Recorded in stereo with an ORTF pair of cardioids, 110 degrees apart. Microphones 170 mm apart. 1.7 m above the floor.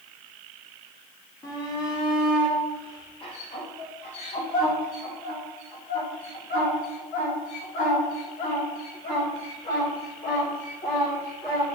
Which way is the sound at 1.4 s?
25° left.